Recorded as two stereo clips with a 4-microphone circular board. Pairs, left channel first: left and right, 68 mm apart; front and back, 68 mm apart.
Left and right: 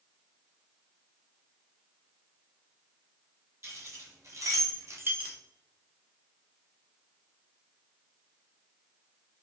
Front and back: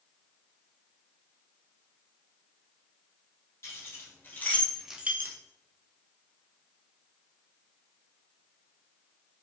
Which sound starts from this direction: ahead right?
Keys jangling, at 3.6 s.